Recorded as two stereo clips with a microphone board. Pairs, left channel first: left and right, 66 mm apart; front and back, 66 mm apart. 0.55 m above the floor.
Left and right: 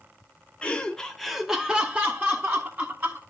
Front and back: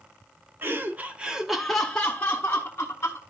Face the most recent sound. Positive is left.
turn(degrees=-45)